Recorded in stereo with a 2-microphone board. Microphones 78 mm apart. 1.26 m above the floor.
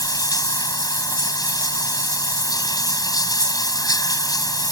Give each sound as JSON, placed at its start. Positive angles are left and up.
{"t": 0.0, "sound": "running water", "side_deg": 50}